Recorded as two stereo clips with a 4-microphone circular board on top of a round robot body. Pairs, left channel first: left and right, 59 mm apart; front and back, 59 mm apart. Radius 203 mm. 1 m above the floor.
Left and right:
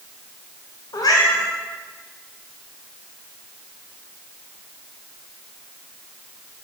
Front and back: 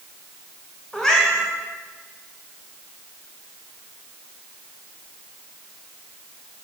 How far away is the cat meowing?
About 0.7 m.